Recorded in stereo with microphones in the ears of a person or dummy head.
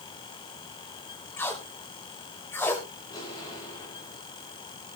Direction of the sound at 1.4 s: 15° left (ahead or behind).